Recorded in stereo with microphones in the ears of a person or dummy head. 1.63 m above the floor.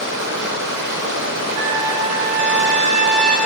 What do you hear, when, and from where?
0.0 s running water: 60° right (ahead or behind), 3.5 m
1.6 s a trumpet: 70° right (ahead or behind), 4.5 m